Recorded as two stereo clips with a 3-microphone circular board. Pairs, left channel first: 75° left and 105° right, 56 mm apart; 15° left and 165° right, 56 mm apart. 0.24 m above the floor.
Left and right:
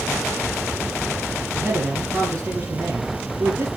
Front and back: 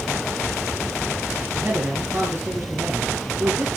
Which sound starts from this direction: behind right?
A man speaking, at 1.5 s.